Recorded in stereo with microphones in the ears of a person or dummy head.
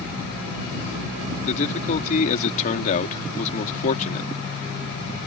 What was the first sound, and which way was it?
A man speaking, 50° left (ahead or behind).